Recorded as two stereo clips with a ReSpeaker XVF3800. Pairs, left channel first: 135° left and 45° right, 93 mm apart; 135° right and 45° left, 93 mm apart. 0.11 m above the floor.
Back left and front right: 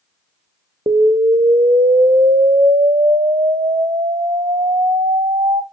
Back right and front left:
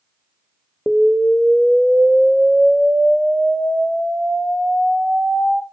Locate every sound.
0.9 s an explosion: 40° right, 0.6 m